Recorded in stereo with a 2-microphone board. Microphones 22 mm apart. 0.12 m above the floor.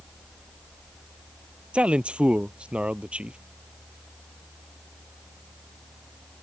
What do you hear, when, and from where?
1.7 s a man speaking: 65° right (ahead or behind)